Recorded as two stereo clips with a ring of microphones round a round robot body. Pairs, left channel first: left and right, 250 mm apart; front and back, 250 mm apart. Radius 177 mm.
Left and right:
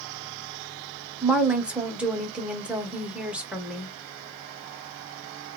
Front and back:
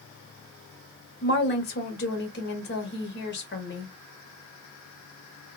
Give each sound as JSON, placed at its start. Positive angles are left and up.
{"t": 1.2, "sound": "a woman speaking", "azimuth_deg": -5, "distance_m": 0.9}